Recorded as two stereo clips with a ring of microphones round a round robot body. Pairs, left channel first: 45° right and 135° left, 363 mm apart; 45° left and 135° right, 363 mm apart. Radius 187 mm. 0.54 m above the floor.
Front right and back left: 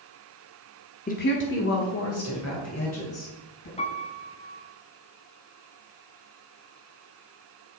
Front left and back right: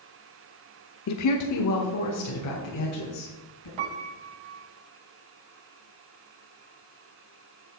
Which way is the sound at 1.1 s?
20° left.